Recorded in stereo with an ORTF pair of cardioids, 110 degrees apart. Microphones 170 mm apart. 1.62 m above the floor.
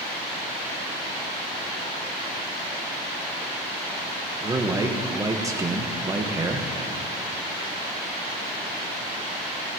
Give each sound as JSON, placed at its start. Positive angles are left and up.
{"t": 4.4, "sound": "a man speaking", "azimuth_deg": -20, "distance_m": 1.4}